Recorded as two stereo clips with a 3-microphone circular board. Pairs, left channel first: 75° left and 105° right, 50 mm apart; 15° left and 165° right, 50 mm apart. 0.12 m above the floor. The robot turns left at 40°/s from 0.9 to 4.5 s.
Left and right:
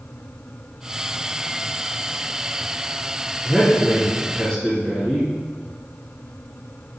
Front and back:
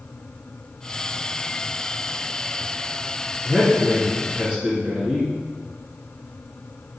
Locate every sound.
3.4 s a man speaking: 165° left, 1.6 m; by 5.3 s 125° left, 1.6 m